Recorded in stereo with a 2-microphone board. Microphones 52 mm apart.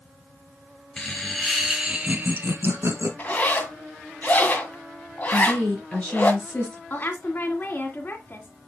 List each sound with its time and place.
1.0 s laughter: 15° left (ahead or behind), 2.5 m; by 3.1 s 60° right (ahead or behind), 2 m
3.2 s a zipper: 35° left (ahead or behind), 1.9 m
5.3 s a woman speaking: 25° left (ahead or behind), 3.5 m
6.9 s a woman speaking: 40° left (ahead or behind), 2 m